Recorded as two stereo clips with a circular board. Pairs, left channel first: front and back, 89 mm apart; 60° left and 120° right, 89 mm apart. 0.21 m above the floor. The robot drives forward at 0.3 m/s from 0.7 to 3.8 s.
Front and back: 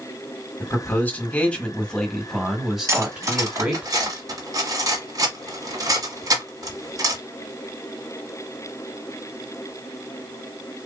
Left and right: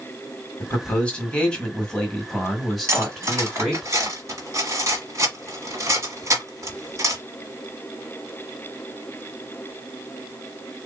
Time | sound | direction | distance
0.6 | a man speaking | 10° left | 1.3 m
2.9 | cutlery clinking | 150° right | 1.0 m